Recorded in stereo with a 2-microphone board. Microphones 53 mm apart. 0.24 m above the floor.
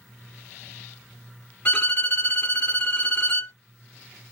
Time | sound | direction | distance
1.6 | a violin | 35° left (ahead or behind) | 1.1 m